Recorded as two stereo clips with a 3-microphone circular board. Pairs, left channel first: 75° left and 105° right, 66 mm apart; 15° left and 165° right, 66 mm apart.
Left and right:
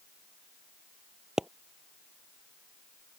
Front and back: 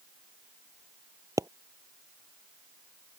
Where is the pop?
175° left.